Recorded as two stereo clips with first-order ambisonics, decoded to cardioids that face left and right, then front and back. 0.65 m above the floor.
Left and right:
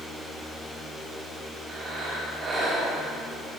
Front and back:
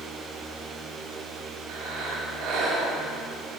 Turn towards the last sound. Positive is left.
turn(degrees=-155)